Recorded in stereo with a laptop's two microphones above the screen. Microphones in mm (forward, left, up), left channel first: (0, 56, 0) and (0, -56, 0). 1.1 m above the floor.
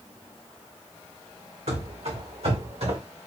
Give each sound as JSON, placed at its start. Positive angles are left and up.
{"t": 1.7, "sound": "running footsteps", "side_deg": -70, "distance_m": 3.0}